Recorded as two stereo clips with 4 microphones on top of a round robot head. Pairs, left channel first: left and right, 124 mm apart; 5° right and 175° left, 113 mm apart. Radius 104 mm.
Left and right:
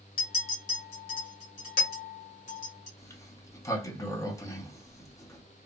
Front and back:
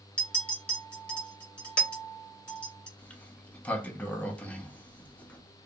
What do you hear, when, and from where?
0.2 s a clink: 75° left, 1.6 m
3.0 s a sliding door: 60° left, 0.8 m